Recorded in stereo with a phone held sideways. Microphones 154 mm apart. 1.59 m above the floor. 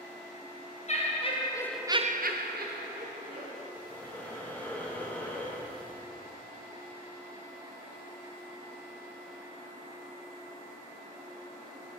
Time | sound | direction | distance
0.9 | laughter | 45° left (ahead or behind) | 1.5 m
3.7 | breathing | 10° left (ahead or behind) | 1.1 m